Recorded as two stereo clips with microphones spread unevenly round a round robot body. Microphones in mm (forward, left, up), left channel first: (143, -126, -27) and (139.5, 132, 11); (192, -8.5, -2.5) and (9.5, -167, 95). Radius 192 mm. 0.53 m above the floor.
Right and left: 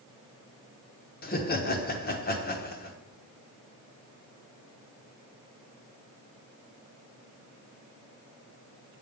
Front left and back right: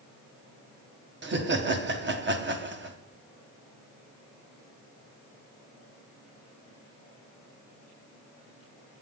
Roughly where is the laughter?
Right.